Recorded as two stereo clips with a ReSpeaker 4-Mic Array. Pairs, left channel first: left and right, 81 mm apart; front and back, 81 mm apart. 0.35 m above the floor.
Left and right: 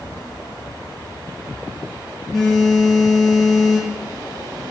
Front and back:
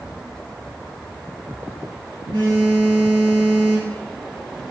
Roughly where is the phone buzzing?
Behind.